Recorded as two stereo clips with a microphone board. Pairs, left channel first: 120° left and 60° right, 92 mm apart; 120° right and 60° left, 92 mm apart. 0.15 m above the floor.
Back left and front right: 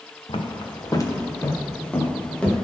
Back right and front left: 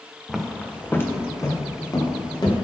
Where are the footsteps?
150° left, 1.3 m; by 2.5 s 160° right, 2.5 m.